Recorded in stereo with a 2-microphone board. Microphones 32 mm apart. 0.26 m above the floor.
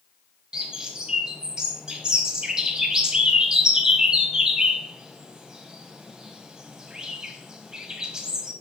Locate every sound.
0.5 s a bird: 25° right (ahead or behind), 1.3 m